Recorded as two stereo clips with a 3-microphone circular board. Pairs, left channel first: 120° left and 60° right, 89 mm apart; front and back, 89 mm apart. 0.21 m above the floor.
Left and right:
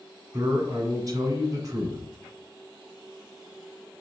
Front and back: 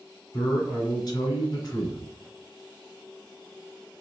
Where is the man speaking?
25° right, 1.9 m.